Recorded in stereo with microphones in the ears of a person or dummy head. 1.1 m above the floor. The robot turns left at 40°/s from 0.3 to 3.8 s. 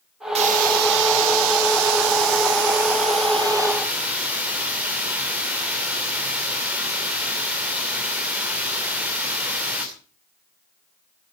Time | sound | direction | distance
0.3 | a hiss | 35° right | 3 m